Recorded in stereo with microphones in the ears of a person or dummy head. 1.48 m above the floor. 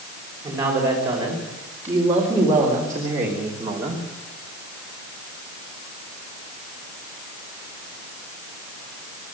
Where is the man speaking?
10° right (ahead or behind), 5.5 m; by 4.0 s 15° right (ahead or behind), 3 m.